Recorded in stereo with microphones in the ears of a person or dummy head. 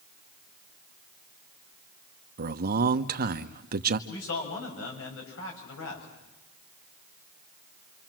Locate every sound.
2.4 s a man speaking: 50° right (ahead or behind), 1.1 m
4.1 s a man speaking: 90° left, 7 m